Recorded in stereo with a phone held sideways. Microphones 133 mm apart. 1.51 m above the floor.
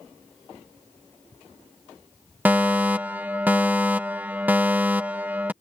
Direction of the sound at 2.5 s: 15° right (ahead or behind).